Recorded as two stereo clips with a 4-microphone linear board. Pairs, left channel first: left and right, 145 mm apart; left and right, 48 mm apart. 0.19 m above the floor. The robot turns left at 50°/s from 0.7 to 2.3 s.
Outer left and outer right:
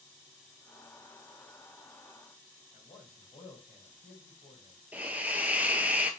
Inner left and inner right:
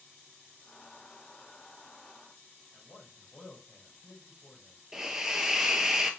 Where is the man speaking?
45° left (ahead or behind), 3.5 m.